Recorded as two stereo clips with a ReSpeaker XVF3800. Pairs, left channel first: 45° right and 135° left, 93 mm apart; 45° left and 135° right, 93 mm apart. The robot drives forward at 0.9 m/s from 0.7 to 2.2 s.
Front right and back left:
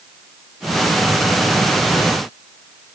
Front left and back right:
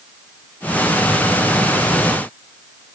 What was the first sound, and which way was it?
Only background noise.